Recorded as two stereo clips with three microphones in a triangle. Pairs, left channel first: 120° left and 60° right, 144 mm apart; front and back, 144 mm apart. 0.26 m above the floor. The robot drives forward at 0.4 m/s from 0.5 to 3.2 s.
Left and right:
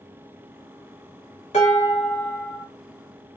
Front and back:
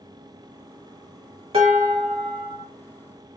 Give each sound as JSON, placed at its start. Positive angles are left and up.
{"t": 1.5, "sound": "dishes clattering", "azimuth_deg": 145, "distance_m": 1.4}